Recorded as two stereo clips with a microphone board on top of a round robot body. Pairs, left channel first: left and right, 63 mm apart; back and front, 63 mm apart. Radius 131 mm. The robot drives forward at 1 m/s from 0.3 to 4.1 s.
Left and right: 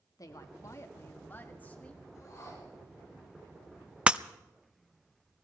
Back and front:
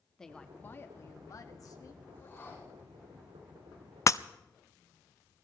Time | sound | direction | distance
0.2 | a woman speaking | 100° left | 1.0 m
2.1 | a whoosh | 120° left | 7 m
4.1 | breaking glass | 160° right | 0.5 m